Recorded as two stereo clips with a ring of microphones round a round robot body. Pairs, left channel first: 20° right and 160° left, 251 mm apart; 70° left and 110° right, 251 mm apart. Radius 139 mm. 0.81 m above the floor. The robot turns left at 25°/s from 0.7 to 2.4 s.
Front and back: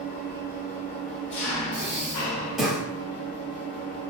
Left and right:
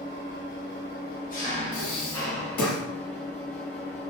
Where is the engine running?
30° left, 1.0 m; by 4.1 s 15° right, 1.0 m.